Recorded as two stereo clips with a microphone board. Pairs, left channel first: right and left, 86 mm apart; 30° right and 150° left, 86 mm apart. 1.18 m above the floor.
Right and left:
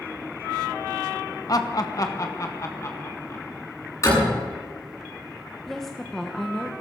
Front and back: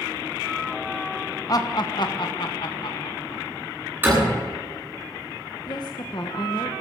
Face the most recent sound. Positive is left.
turn(degrees=-5)